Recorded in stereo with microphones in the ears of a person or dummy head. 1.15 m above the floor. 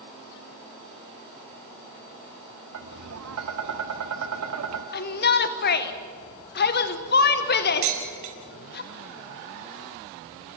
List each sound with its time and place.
2.7 s tapping: 85° right, 1.7 m
4.9 s a shout: 45° left (ahead or behind), 1.1 m
7.8 s dishes clattering: 40° right (ahead or behind), 5 m